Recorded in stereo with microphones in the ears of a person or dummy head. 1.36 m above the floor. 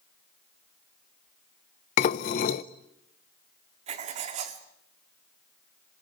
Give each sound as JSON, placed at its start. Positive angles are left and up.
{"t": 2.0, "sound": "dishes clattering", "side_deg": 30, "distance_m": 0.5}
{"t": 3.9, "sound": "writing", "side_deg": -35, "distance_m": 1.7}